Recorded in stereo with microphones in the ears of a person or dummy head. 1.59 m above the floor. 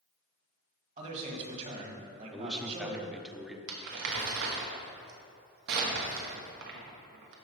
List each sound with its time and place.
1.0 s a man speaking: 40° right (ahead or behind), 2 m
2.3 s a man speaking: 5° right (ahead or behind), 0.9 m
3.7 s crumpling: 55° right (ahead or behind), 1.3 m